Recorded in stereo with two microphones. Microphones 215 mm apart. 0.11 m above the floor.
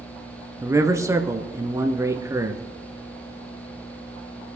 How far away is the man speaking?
About 1.4 m.